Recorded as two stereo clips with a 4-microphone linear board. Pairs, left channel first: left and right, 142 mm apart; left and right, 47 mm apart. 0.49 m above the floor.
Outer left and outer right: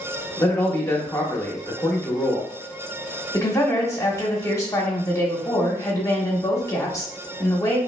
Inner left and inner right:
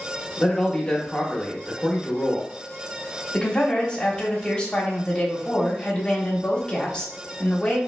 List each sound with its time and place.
0.4 s a man speaking: 20° left (ahead or behind), 0.7 m
3.3 s a woman speaking: 20° left (ahead or behind), 0.9 m